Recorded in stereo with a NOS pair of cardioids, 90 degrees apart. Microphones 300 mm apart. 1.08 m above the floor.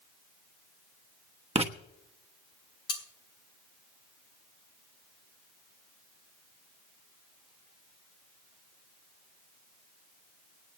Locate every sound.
1.6 s writing: 20° right, 1.2 m
2.9 s cutlery clinking: 50° left, 2 m